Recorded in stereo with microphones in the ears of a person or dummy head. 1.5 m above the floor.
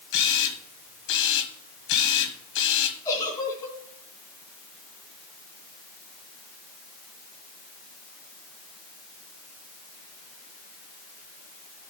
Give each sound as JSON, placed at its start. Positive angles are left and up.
{"t": 0.1, "sound": "a camera shutter", "side_deg": 70, "distance_m": 1.5}
{"t": 3.0, "sound": "a giggle", "side_deg": 20, "distance_m": 3.0}